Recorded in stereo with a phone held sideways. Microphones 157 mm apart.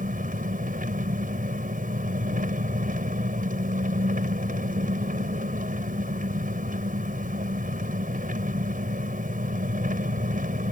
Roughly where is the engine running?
Right.